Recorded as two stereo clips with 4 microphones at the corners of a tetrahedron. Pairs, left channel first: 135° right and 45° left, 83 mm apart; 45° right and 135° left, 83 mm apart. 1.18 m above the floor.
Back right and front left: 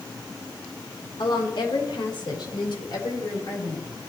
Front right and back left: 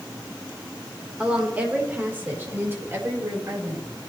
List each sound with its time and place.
1.2 s a woman speaking: 150° right, 4 m; by 3.9 s 170° right, 5 m